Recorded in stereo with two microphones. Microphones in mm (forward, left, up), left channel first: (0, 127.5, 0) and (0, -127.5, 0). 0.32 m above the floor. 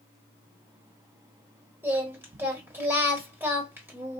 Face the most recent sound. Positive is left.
turn(degrees=-10)  # may be behind; listen again after turning